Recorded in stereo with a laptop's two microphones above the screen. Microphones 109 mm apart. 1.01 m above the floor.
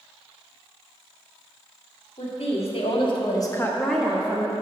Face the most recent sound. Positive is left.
turn(degrees=-25)  # may be behind; listen again after turning